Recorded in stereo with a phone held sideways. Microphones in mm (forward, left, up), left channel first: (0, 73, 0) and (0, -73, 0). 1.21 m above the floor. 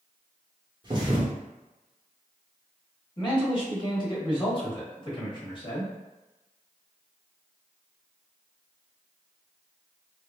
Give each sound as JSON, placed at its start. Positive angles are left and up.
{"t": 0.8, "sound": "a thud", "side_deg": -30, "distance_m": 1.0}
{"t": 3.2, "sound": "a man speaking", "side_deg": 35, "distance_m": 1.2}